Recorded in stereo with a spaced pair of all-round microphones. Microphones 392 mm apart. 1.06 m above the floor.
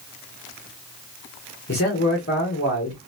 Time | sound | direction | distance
1.7 | a man speaking | 35° left (ahead or behind) | 1.3 m